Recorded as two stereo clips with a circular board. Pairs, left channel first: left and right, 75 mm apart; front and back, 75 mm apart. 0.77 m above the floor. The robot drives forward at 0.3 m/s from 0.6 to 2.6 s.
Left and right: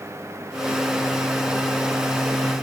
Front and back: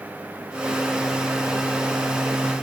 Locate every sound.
Only background noise.